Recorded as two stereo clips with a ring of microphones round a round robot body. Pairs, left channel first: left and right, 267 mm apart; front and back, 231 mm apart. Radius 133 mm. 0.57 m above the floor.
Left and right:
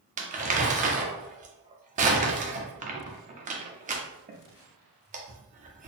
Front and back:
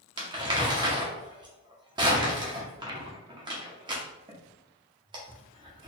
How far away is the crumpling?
About 0.7 m.